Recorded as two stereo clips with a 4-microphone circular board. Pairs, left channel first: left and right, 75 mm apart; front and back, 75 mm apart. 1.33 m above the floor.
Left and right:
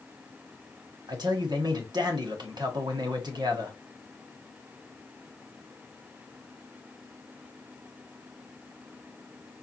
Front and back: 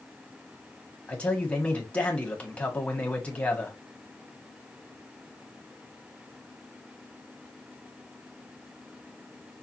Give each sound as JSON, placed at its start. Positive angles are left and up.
{"t": 1.1, "sound": "a man speaking", "azimuth_deg": -70, "distance_m": 1.4}